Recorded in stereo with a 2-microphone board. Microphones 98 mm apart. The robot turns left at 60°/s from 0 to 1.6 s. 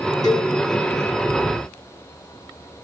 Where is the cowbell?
40° left (ahead or behind), 0.9 m; by 0.5 s 25° left (ahead or behind), 0.9 m.